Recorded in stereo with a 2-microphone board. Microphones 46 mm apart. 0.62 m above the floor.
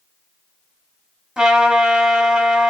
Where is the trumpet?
10° right (ahead or behind), 1.3 m.